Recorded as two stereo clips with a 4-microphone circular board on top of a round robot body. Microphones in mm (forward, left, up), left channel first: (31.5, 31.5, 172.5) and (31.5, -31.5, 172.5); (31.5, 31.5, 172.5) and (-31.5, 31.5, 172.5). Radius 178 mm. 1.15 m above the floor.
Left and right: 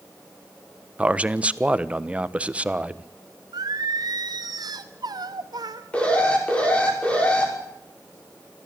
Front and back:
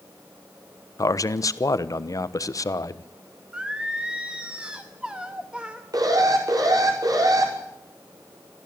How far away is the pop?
I don't hear a pop.